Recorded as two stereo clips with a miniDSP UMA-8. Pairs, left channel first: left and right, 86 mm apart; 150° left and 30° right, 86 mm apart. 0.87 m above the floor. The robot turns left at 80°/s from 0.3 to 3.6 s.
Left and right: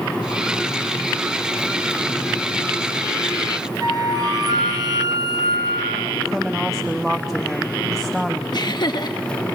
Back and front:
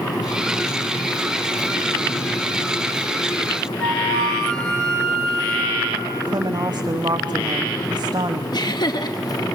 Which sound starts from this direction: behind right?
A flute, at 3.8 s.